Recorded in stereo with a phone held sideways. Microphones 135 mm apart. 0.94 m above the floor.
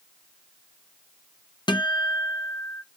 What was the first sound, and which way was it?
A guitar, 30° left (ahead or behind).